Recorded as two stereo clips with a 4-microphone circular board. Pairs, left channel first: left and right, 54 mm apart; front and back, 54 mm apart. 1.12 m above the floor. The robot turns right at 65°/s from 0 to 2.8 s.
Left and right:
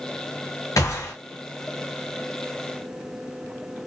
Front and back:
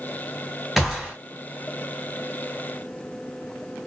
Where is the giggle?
No giggle in this recording.